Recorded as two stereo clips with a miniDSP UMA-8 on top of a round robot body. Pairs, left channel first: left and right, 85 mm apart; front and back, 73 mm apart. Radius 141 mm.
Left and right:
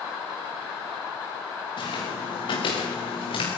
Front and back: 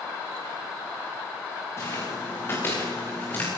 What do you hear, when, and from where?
1.8 s footsteps: 55° left, 6.5 m; by 3.5 s 65° left, 7 m